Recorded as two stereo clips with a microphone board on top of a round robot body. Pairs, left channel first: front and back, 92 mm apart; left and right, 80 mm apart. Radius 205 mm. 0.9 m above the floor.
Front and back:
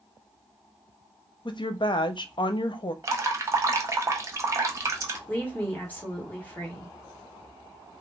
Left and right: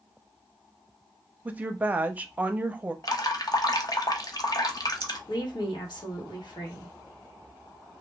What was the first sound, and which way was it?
A woman speaking, 20° right.